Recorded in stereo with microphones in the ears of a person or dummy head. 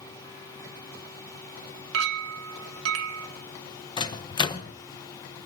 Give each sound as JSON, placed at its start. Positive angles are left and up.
{"t": 1.9, "sound": "a clink", "side_deg": -80, "distance_m": 1.2}
{"t": 4.0, "sound": "a microwave", "side_deg": 25, "distance_m": 0.8}